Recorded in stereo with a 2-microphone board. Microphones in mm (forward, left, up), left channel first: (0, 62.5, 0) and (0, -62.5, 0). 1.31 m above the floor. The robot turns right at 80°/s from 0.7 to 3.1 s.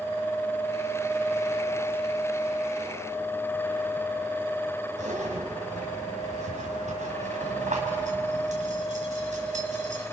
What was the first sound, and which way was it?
A zipper, 75° right (ahead or behind).